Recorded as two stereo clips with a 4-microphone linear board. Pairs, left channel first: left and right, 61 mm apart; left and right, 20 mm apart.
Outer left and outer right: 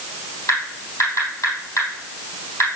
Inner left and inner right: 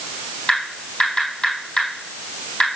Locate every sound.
0.5 s typing on a keyboard: 55° left (ahead or behind), 3.5 m